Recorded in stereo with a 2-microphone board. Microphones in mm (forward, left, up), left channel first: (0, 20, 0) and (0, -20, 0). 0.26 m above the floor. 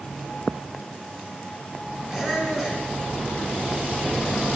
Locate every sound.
2.1 s a squeak: 15° right (ahead or behind), 2 m